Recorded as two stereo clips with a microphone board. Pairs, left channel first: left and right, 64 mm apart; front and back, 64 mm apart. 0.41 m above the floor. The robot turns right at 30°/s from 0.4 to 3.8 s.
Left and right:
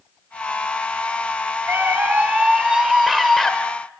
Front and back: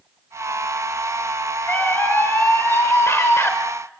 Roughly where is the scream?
Ahead right.